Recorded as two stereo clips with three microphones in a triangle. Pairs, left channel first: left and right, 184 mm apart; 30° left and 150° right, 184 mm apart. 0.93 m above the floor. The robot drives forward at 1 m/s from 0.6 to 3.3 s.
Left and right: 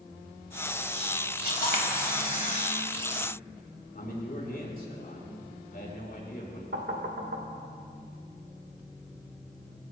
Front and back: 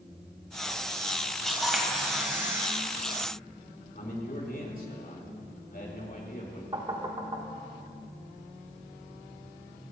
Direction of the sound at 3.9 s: 60° left.